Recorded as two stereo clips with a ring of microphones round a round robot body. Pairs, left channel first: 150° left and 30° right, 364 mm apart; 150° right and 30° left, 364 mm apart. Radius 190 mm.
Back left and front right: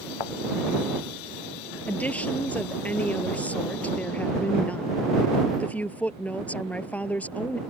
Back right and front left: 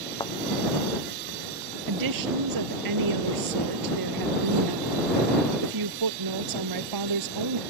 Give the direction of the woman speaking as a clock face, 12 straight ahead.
10 o'clock.